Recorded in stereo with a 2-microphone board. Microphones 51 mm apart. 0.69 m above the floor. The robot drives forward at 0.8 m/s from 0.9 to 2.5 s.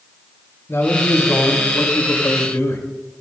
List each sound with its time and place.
0.7 s a man speaking: 55° left (ahead or behind), 3.5 m; by 2.8 s 70° left (ahead or behind), 3 m